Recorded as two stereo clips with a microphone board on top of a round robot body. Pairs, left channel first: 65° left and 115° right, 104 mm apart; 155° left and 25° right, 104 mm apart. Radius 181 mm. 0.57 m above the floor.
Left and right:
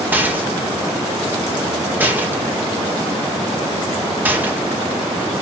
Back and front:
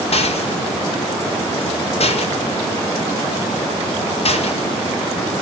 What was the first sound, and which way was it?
A rattle, 175° left.